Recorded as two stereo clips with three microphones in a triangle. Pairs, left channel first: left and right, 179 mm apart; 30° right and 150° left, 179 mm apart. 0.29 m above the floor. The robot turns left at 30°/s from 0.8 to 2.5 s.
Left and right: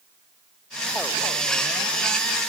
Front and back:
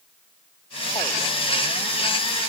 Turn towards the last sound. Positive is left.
No sound to turn to.